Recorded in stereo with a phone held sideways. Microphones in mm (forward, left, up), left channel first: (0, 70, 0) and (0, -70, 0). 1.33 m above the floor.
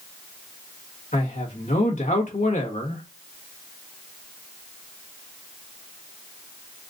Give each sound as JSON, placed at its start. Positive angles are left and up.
{"t": 1.1, "sound": "a man speaking", "side_deg": 65, "distance_m": 1.5}